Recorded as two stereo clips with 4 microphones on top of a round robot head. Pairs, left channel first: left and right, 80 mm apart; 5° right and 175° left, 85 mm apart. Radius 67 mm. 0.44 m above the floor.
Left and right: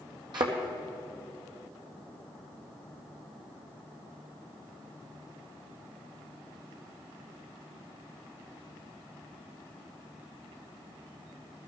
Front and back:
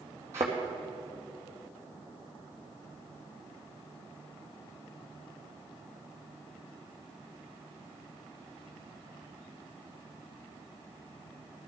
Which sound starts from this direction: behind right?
A thud, at 0.3 s.